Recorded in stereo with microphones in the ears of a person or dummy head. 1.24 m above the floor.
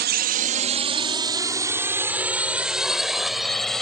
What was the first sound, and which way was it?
A drone, 55° right (ahead or behind).